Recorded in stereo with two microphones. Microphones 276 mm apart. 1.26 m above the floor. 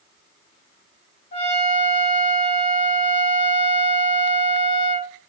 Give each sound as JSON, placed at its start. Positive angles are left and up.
{"t": 1.3, "sound": "a trumpet", "side_deg": 40, "distance_m": 1.5}